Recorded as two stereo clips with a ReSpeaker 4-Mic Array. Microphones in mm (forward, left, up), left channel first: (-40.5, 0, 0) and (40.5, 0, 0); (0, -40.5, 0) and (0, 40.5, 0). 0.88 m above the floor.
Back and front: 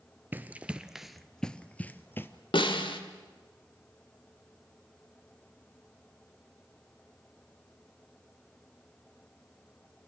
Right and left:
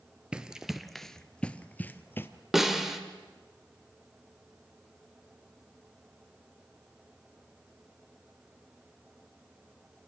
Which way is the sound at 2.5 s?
175° left.